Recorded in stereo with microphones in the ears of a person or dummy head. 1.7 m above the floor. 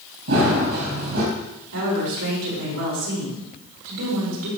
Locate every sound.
0.3 s running footsteps: 60° right (ahead or behind), 3.5 m
1.7 s a woman speaking: 85° right, 4.5 m